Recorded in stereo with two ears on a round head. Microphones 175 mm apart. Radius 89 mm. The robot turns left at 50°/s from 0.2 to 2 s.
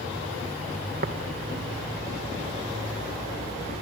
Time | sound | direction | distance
1.0 | tapping | 45° right (ahead or behind) | 1.5 m